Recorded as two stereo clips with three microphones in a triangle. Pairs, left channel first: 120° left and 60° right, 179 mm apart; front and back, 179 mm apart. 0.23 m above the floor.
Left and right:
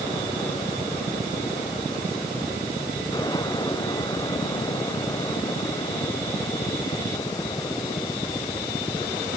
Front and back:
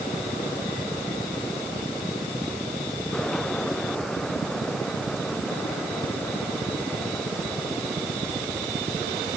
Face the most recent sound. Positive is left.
No sound to turn to.